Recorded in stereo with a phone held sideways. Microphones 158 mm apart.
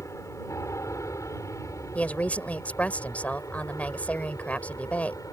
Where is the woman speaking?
10° left (ahead or behind).